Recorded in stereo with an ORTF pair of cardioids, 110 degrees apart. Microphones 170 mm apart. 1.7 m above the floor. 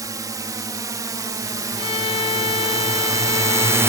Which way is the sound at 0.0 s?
20° right.